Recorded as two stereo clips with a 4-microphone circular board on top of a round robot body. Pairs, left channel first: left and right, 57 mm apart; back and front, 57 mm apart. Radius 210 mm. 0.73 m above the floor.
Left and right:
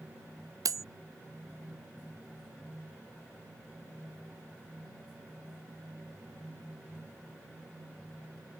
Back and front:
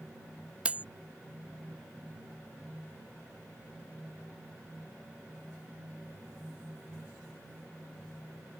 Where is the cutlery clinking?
70° right.